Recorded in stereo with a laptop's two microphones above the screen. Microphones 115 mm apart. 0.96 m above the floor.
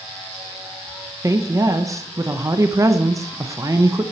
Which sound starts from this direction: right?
A woman speaking, at 1.2 s.